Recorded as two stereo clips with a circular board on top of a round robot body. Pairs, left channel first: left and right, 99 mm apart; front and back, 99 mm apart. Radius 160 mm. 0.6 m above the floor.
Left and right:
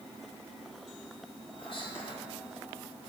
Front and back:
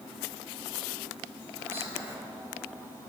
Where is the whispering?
115° left, 2.5 m.